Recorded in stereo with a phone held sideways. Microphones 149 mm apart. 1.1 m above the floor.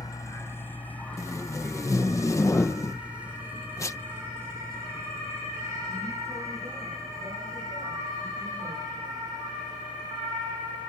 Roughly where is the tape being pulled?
Centre.